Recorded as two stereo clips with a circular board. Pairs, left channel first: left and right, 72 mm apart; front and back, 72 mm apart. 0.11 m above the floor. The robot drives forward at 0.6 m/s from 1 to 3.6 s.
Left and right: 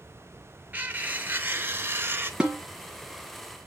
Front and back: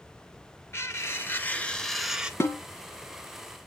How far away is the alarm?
I don't hear an alarm.